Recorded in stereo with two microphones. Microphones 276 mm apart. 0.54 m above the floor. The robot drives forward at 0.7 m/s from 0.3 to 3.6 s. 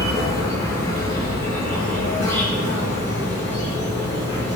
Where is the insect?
10° left (ahead or behind), 4 m; by 4.6 s 5° left (ahead or behind), 6.5 m.